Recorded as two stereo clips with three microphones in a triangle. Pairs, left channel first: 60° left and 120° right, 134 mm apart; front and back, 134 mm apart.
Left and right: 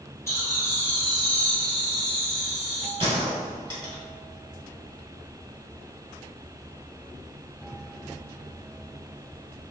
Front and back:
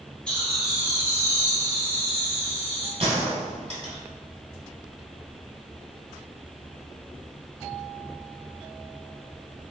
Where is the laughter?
65° left, 1.0 m; by 2.9 s 145° left, 1.8 m.